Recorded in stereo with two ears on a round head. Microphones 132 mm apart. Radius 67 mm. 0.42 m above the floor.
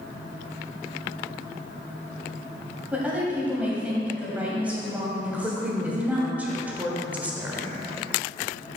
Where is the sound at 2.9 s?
10° right (ahead or behind), 2 m.